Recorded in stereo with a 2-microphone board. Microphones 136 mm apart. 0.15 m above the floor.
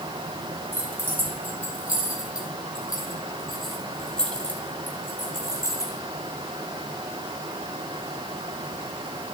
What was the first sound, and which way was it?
Keys jangling, 15° right (ahead or behind).